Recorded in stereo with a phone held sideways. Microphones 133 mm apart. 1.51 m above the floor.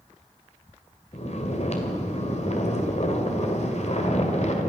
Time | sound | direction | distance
1.1 | snoring | 55° left (ahead or behind) | 1.9 m